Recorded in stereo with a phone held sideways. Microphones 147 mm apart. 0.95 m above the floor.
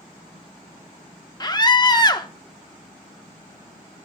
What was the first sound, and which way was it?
A scream, 30° left (ahead or behind).